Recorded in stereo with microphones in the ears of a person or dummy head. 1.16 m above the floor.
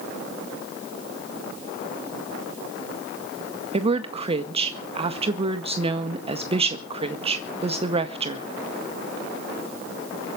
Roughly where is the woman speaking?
Right.